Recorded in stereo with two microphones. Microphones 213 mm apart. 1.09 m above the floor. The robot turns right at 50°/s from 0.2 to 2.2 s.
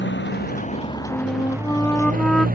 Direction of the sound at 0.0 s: 120° left.